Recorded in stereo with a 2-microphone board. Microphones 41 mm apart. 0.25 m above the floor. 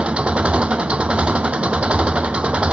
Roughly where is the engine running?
Right.